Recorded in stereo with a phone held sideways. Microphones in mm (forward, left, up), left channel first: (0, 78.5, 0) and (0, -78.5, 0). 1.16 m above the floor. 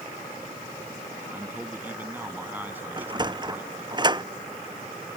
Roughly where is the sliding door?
Right.